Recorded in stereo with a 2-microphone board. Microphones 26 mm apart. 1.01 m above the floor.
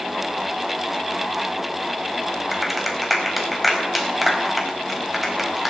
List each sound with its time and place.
2.5 s a clap: 10° right (ahead or behind), 4.5 m